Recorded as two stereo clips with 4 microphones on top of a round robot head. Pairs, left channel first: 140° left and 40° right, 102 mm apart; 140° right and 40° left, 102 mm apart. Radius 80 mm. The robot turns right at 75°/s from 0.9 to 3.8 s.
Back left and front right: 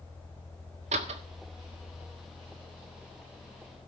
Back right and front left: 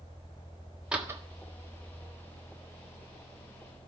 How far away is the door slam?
About 1.5 m.